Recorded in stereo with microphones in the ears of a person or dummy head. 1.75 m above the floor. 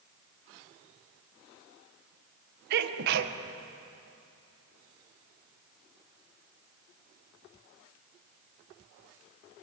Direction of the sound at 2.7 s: 60° right (ahead or behind).